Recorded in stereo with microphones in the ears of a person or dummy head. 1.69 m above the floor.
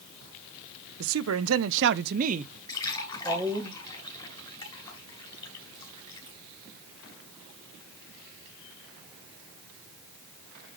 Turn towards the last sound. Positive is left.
turn(degrees=25)  # may be behind; listen again after turning